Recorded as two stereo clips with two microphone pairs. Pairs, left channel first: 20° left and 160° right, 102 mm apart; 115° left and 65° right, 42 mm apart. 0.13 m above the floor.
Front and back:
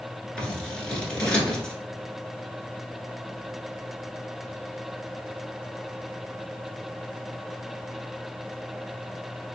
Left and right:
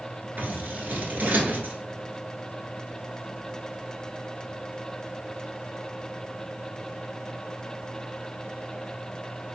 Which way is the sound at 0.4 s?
55° right.